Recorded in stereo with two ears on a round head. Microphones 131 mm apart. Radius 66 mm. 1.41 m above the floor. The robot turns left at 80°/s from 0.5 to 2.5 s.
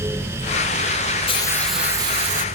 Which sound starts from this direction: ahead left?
A hiss, at 1.3 s.